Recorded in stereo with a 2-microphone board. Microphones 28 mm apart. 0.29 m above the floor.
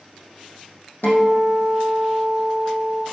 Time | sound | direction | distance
1.0 | a guitar | 80° left | 3.5 m